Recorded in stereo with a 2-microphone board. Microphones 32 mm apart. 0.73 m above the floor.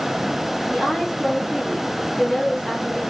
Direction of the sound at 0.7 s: 10° right (ahead or behind).